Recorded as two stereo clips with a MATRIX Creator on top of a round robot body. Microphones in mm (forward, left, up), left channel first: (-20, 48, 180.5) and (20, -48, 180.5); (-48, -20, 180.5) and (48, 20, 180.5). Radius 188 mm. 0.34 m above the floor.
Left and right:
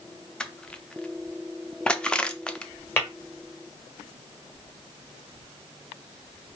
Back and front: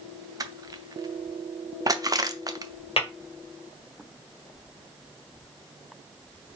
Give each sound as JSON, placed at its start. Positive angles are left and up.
{"t": 0.4, "sound": "crushing", "azimuth_deg": 35, "distance_m": 0.8}
{"t": 3.0, "sound": "tapping", "azimuth_deg": 180, "distance_m": 2.0}